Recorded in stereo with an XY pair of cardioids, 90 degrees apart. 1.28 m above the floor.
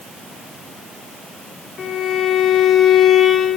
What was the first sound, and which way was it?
A violin, 65° left.